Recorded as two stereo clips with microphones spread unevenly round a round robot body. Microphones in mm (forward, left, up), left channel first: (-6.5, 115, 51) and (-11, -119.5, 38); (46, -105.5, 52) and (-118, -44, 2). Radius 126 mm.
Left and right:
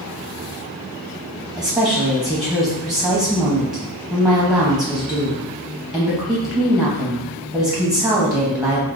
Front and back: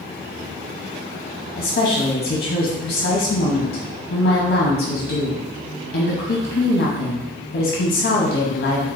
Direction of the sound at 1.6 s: 10° right.